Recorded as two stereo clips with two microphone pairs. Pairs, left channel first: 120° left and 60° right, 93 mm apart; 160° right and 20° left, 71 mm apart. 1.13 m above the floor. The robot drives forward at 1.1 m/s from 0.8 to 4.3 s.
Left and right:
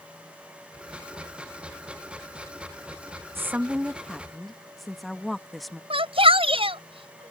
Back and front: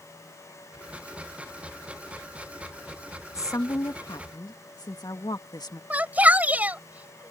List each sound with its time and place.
3.4 s a woman speaking: 120° right; by 5.8 s 150° right
5.9 s a shout: 50° right